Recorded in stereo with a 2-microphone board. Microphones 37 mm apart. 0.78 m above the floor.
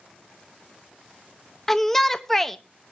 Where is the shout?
10° left (ahead or behind), 0.6 m.